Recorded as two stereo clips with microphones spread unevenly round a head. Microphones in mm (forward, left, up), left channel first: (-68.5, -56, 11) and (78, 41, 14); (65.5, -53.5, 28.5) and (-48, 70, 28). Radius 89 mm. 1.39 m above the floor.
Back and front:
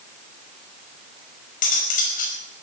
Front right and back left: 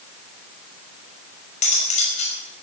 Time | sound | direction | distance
1.6 | cutlery clinking | 100° right | 5 m